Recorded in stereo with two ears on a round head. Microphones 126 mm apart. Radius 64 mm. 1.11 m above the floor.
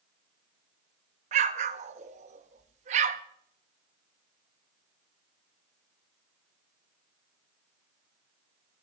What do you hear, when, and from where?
1.3 s an explosion: 50° right (ahead or behind), 0.6 m